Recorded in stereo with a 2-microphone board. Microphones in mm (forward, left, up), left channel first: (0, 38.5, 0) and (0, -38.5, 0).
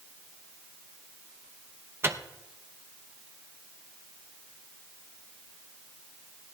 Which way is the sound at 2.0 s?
35° right (ahead or behind).